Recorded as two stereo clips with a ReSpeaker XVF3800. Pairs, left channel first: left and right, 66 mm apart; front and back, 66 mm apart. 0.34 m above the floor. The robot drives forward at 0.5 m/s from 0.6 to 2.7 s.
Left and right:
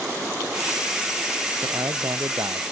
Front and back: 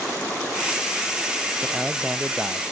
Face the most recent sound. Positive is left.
turn(degrees=-105)